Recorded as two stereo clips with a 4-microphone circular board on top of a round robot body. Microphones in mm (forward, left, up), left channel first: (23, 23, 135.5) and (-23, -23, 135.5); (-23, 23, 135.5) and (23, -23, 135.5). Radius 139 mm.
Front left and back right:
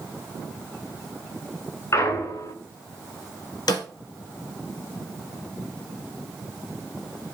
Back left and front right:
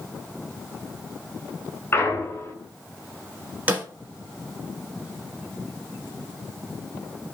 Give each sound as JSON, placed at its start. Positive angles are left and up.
{"t": 1.9, "sound": "a clunk", "azimuth_deg": 80, "distance_m": 2.0}
{"t": 3.7, "sound": "a snare drum", "azimuth_deg": 25, "distance_m": 1.5}